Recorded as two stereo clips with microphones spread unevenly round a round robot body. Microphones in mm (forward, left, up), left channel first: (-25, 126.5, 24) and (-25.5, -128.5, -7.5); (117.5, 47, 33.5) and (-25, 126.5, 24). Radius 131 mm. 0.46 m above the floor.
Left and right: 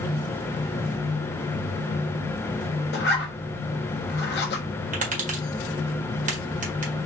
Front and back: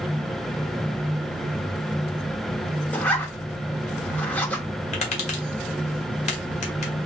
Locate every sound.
2.9 s a zipper: 50° left, 1.2 m
4.9 s tapping: 55° right, 1.4 m